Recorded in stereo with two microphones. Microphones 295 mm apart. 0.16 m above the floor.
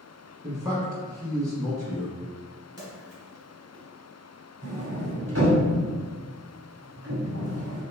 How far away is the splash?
About 1.9 m.